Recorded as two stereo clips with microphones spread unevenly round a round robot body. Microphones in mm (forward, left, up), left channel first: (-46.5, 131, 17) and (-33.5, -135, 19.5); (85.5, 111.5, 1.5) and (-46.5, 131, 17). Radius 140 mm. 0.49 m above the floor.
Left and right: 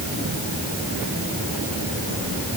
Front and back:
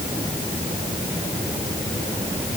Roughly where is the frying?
No frying in this recording.